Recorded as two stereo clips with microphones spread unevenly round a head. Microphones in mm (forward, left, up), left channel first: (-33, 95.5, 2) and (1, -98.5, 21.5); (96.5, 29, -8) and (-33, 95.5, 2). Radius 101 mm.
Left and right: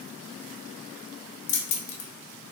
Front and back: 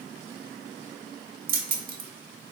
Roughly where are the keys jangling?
Behind left.